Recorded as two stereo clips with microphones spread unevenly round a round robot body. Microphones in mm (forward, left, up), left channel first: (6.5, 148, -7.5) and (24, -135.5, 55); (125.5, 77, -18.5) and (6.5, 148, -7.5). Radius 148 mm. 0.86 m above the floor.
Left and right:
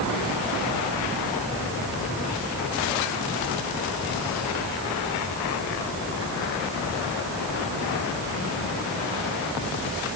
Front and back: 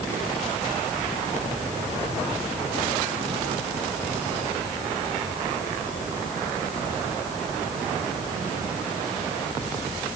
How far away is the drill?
I don't hear a drill.